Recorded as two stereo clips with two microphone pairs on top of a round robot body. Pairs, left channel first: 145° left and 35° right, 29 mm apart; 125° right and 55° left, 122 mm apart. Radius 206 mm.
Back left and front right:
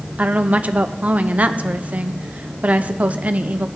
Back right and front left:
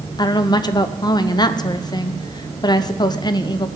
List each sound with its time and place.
0.2 s a woman speaking: 75° right, 0.6 m